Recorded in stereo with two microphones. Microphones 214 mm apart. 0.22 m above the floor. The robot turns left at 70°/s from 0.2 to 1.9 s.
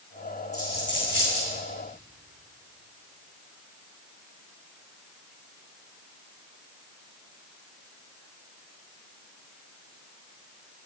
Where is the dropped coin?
30° left (ahead or behind), 3 m; by 1.5 s 80° left, 3 m.